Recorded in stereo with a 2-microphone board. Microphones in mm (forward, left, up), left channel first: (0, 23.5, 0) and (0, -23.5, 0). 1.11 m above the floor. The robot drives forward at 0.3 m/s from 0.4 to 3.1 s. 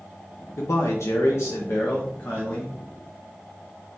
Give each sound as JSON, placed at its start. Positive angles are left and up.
{"t": 0.6, "sound": "a man speaking", "side_deg": 80, "distance_m": 0.6}